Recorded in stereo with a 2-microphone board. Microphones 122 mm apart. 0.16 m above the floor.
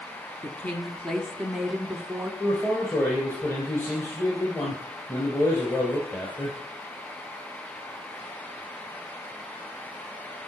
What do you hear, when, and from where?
0.4 s a woman speaking: 15° left (ahead or behind), 1.3 m; by 2.3 s 15° right (ahead or behind), 1.2 m
2.4 s a man speaking: 15° left (ahead or behind), 3 m